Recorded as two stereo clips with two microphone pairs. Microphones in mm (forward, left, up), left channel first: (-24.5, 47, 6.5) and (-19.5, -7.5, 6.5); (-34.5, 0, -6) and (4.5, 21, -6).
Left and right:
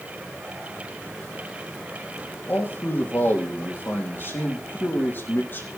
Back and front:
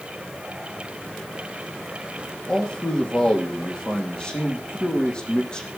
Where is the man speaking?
140° left, 4 m.